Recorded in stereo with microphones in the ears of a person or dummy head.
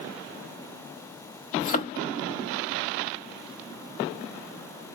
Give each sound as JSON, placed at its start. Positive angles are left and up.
{"t": 1.6, "sound": "a thud", "side_deg": 45, "distance_m": 0.9}